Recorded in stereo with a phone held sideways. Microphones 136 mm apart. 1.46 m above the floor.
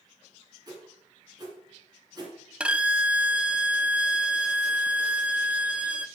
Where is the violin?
10° right (ahead or behind), 0.6 m.